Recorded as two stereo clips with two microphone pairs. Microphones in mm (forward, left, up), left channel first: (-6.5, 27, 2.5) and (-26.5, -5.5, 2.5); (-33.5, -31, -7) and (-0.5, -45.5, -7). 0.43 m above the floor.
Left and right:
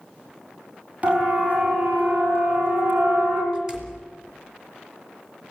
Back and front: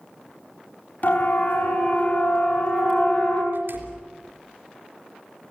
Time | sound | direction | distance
1.0 | a siren | 175° right | 5 m
3.5 | a door slam | 50° right | 3.5 m